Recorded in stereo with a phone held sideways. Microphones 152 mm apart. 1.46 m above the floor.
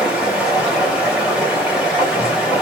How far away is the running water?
About 0.9 m.